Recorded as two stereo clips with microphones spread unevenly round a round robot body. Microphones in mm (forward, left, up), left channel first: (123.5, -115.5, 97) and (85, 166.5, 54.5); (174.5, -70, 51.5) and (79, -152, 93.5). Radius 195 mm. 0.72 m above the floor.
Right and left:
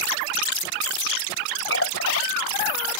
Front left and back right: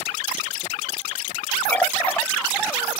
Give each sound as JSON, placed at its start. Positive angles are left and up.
{"t": 1.7, "sound": "a running tap", "azimuth_deg": -40}